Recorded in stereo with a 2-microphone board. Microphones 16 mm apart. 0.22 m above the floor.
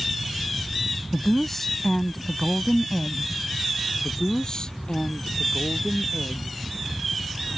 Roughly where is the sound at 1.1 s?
Centre.